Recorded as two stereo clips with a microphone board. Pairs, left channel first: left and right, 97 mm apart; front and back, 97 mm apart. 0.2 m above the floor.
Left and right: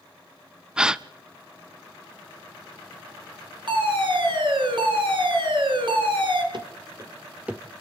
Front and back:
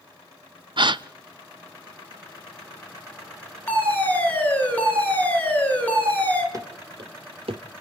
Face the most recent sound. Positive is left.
turn(degrees=-175)